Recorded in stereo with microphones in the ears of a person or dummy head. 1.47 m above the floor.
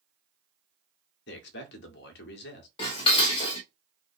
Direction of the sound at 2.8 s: 30° left (ahead or behind).